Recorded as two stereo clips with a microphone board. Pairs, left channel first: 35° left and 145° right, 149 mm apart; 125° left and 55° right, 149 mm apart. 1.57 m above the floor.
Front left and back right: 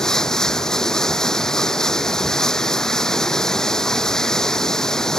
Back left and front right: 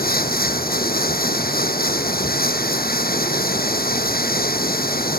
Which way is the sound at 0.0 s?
120° left.